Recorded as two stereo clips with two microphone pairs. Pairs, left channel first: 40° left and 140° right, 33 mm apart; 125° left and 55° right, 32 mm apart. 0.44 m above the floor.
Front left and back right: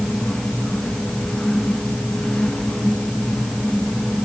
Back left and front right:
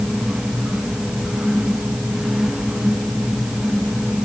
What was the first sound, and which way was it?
Only background noise.